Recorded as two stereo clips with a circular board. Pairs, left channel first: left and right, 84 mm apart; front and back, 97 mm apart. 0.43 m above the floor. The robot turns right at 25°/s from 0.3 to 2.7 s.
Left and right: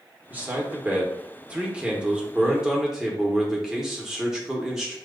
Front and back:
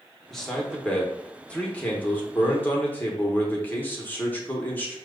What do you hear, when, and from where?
0.3 s a man speaking: 75° right, 0.9 m; by 5.0 s 15° right, 0.9 m